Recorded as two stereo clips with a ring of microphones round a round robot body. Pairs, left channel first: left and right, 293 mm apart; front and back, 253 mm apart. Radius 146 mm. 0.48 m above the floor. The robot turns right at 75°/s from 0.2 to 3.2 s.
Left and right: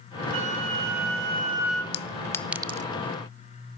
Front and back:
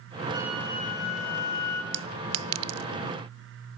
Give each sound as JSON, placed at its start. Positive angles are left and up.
{"t": 0.3, "sound": "a flute", "azimuth_deg": -105, "distance_m": 3.5}
{"t": 1.9, "sound": "a clink", "azimuth_deg": 140, "distance_m": 0.8}